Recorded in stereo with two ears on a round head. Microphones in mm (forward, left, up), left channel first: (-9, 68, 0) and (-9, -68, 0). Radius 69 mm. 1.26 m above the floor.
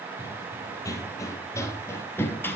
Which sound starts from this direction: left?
Running footsteps, at 0.2 s.